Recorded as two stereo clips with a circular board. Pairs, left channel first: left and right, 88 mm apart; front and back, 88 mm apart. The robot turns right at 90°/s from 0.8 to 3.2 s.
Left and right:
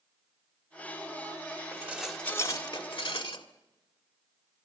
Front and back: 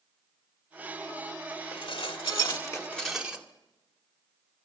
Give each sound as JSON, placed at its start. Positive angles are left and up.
{"t": 1.7, "sound": "dishes clattering", "azimuth_deg": -35, "distance_m": 1.7}